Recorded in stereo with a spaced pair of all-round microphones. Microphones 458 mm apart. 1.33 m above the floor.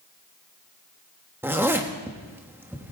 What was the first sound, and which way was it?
A zipper, 5° right (ahead or behind).